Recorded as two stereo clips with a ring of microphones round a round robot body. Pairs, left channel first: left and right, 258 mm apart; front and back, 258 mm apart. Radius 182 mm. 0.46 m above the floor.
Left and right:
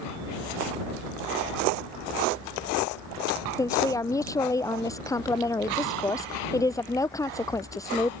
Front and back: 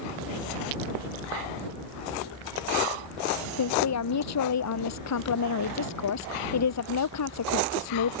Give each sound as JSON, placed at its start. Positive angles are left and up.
{"t": 3.6, "sound": "a woman speaking", "azimuth_deg": 10}